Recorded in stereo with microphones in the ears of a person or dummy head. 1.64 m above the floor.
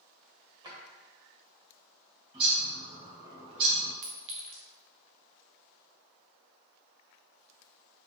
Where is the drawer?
20° right (ahead or behind), 1.6 m.